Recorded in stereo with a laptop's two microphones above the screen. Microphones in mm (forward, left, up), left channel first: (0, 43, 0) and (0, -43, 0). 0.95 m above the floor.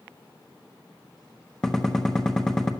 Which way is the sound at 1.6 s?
5° left (ahead or behind).